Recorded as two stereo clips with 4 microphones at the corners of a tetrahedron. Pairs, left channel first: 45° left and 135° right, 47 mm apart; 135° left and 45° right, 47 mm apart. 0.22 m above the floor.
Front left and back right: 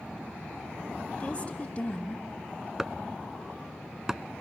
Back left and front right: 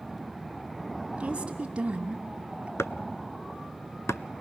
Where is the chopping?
145° left, 0.5 m.